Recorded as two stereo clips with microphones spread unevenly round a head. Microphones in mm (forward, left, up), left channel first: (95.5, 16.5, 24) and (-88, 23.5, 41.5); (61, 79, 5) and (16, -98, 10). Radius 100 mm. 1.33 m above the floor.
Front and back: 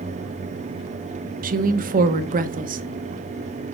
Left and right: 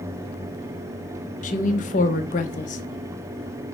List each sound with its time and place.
1.4 s a woman speaking: 135° left, 1.1 m